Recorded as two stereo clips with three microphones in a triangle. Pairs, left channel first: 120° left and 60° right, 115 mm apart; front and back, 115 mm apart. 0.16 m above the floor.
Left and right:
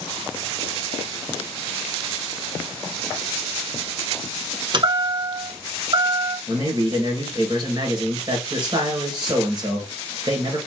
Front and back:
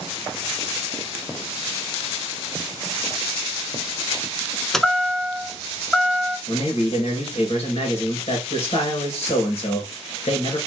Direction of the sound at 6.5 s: 15° right.